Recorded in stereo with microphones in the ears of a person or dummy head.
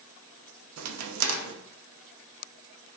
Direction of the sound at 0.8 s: 85° right.